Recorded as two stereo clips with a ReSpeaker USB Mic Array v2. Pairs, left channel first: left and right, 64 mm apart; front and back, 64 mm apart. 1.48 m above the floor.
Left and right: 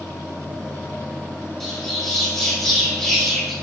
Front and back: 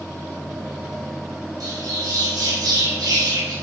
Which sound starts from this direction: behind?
A bird, at 1.6 s.